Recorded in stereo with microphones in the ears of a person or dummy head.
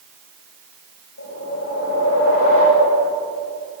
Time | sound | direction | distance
1.2 | a whoosh | 65° left (ahead or behind) | 9.5 m